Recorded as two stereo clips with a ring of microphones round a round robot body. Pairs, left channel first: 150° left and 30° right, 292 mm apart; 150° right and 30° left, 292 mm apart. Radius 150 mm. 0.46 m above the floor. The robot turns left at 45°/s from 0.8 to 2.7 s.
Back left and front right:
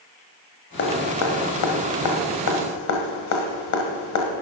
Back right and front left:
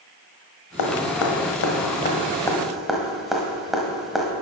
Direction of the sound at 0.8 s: 155° right.